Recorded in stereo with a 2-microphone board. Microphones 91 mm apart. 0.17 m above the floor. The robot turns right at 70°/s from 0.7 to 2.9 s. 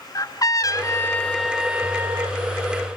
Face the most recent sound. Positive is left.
turn(degrees=-85)